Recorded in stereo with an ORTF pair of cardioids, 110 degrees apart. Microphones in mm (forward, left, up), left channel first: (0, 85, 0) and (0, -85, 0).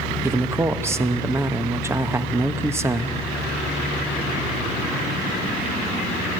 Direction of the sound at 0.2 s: 15° right.